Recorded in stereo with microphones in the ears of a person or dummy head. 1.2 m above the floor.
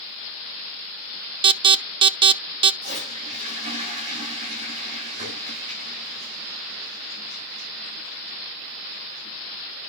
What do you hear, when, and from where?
1.4 s an alarm: 25° right (ahead or behind), 0.6 m
2.8 s a toilet flushing: 35° right (ahead or behind), 6.5 m